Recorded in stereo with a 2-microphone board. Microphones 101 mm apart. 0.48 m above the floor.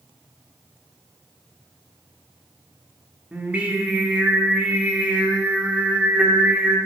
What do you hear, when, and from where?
3.3 s singing: 15° right (ahead or behind), 1.0 m